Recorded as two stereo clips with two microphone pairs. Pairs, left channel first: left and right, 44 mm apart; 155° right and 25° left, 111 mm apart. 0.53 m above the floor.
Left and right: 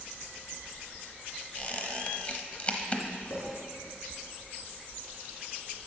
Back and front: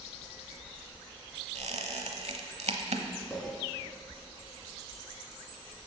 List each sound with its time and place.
1.6 s a squeak: 30° left, 0.9 m
3.3 s a clink: 105° left, 3.5 m